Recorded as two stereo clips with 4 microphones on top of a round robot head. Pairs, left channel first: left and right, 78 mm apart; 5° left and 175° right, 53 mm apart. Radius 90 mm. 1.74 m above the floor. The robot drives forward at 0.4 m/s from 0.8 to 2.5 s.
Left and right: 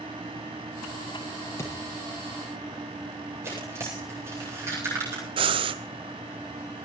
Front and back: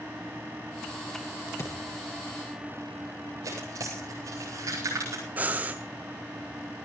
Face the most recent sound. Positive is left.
turn(degrees=-105)